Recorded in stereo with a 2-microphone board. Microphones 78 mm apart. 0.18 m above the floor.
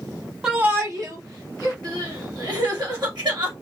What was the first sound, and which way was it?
A shout, 10° right (ahead or behind).